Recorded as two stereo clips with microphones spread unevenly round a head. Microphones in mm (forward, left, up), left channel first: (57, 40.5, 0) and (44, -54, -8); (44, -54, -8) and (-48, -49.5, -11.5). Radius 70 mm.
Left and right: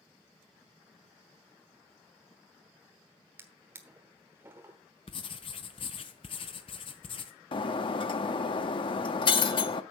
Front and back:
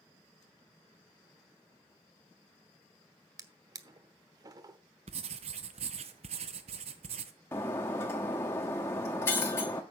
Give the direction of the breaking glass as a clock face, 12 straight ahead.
10 o'clock.